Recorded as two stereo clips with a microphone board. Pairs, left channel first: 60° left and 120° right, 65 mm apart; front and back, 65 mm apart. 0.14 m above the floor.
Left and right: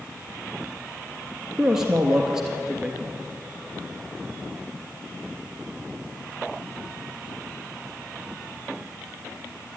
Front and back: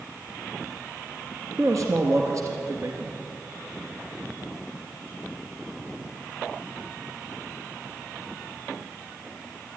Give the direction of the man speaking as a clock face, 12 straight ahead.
7 o'clock.